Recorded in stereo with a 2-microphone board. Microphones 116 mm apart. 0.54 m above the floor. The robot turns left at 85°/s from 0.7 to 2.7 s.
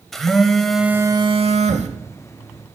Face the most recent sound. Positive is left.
turn(degrees=-35)  # may be behind; listen again after turning